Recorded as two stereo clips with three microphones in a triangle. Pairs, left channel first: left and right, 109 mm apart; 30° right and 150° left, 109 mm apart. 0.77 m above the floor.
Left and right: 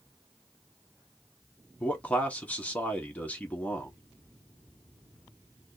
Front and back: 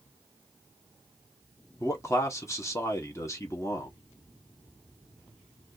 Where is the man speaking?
20° left, 1.0 m.